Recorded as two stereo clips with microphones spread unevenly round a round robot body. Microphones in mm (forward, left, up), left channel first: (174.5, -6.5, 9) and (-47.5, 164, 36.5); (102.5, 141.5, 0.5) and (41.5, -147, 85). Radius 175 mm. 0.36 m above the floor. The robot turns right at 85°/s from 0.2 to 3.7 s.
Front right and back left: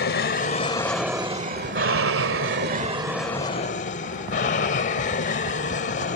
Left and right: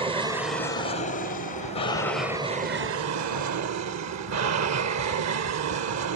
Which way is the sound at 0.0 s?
20° right.